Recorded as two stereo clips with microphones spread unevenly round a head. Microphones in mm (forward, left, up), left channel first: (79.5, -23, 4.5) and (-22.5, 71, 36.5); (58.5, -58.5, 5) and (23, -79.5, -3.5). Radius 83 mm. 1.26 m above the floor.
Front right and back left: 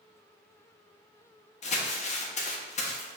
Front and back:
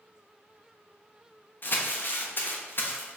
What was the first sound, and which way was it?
Crumpling, 10° right.